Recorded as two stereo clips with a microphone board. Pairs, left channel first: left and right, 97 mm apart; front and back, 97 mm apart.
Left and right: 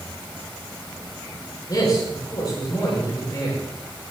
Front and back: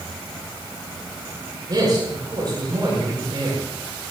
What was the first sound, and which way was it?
A man speaking, 135° left.